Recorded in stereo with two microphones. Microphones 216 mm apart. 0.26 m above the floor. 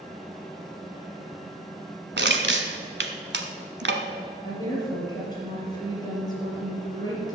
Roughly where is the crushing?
Right.